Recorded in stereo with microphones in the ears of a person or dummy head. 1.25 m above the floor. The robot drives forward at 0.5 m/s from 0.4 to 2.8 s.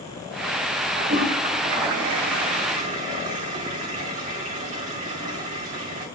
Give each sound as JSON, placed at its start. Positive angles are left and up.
{"t": 1.0, "sound": "a toilet flushing", "side_deg": -55, "distance_m": 2.0}